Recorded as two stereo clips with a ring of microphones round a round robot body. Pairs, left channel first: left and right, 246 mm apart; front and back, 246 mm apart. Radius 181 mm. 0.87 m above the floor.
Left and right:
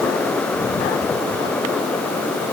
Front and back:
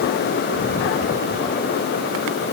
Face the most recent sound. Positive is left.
No sound to turn to.